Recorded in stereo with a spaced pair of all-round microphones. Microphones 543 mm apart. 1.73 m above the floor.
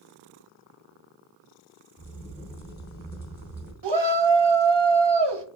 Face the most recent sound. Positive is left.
turn(degrees=-50)  # may be behind; listen again after turning